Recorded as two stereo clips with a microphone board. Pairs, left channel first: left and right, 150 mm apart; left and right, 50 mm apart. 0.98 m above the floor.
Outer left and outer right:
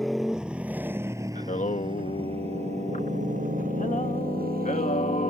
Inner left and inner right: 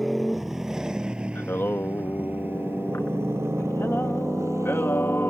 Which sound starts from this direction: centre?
A motorcycle, at 0.0 s.